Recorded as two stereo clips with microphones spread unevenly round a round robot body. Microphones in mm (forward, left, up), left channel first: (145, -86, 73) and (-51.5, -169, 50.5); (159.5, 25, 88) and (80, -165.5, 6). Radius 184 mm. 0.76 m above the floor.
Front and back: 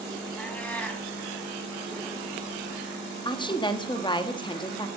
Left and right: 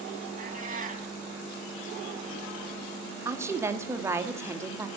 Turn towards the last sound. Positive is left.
turn(degrees=-50)